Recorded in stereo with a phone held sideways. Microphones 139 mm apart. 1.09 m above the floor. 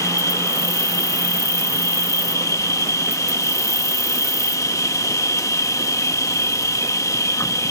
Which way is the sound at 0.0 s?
25° left (ahead or behind).